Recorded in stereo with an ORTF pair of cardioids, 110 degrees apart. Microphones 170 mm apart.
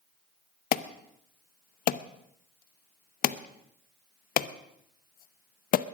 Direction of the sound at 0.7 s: 55° left.